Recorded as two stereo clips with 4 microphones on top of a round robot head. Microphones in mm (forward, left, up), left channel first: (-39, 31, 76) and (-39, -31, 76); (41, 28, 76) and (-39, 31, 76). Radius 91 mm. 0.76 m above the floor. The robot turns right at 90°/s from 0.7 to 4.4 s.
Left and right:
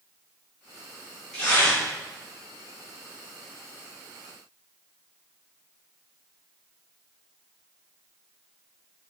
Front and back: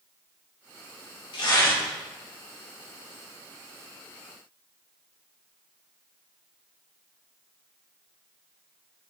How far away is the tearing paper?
About 3 m.